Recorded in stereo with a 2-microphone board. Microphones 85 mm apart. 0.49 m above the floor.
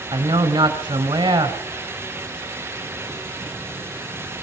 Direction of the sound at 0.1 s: 70° right (ahead or behind).